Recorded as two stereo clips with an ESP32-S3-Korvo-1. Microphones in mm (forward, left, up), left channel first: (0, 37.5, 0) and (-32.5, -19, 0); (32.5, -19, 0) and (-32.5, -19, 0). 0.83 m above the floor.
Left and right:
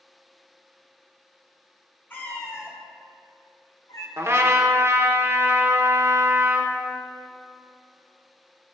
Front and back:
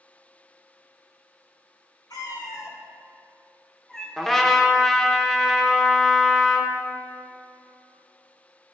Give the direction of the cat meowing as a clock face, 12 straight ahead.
12 o'clock.